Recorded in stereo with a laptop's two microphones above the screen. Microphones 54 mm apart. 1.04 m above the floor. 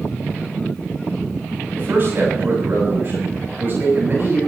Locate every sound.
1.7 s a man speaking: 40° right (ahead or behind), 6.5 m